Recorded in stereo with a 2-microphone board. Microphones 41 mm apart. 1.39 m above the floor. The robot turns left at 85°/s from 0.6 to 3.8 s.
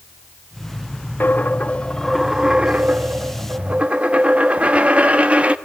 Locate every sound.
1.2 s a dropped coin: 90° left, 1.0 m; by 5.5 s 135° right, 1.0 m